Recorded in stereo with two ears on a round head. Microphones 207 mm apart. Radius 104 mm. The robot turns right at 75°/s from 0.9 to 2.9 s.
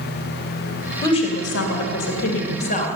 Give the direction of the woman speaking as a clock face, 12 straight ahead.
12 o'clock.